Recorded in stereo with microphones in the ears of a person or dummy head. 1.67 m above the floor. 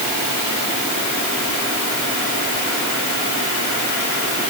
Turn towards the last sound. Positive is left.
No sound to turn to.